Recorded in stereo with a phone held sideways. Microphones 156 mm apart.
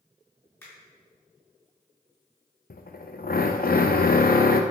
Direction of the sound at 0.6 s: 15° left (ahead or behind).